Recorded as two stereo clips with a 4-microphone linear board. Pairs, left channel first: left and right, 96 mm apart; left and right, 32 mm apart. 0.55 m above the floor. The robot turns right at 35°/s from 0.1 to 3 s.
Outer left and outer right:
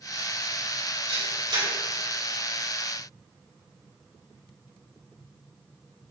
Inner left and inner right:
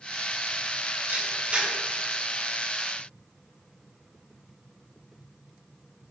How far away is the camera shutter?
About 3 m.